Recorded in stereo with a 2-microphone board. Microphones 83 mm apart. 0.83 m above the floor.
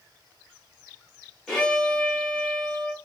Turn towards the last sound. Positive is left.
turn(degrees=0)  # may be behind; listen again after turning